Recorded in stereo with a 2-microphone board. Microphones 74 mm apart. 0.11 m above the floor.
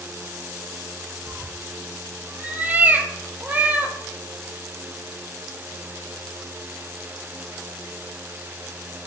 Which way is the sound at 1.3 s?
25° right (ahead or behind).